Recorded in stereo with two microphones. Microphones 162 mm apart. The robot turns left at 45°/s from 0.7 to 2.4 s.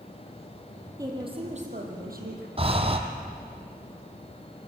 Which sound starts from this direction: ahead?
A woman speaking, at 1.0 s.